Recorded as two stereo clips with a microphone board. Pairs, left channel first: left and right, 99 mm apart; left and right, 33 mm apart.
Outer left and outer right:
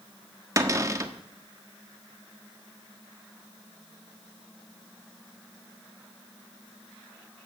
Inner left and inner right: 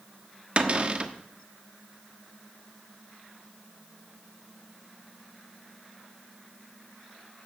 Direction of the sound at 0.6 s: 35° right (ahead or behind).